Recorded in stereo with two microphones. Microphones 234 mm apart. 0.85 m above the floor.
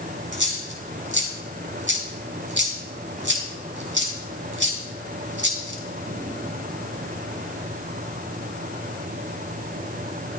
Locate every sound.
0.3 s a dropped coin: 55° right (ahead or behind), 3.5 m